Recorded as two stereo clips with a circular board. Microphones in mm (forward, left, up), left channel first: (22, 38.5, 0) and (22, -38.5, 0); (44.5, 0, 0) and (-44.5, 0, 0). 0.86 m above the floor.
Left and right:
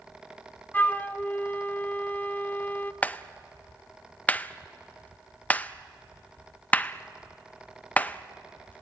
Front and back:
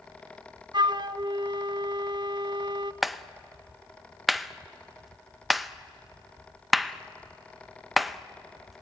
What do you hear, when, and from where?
0.7 s a flute: 155° left, 0.5 m
3.0 s a clap: 90° left, 0.6 m